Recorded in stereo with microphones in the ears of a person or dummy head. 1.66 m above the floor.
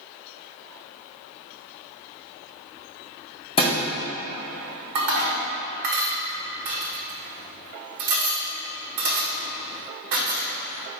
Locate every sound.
3.6 s a thud: 30° left (ahead or behind), 1.9 m
5.0 s dishes clattering: 65° right (ahead or behind), 1.4 m